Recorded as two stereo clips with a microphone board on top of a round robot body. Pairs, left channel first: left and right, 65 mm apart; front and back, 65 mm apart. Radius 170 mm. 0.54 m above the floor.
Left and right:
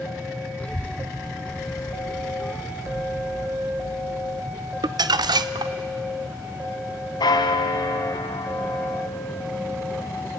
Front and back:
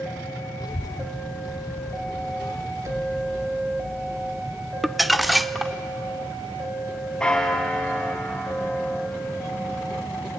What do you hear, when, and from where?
0.6 s a child speaking: 25° left, 0.8 m
2.8 s an explosion: 135° right, 3 m
4.8 s crumpling: 90° right, 0.6 m
7.2 s a bell: 80° left, 1.0 m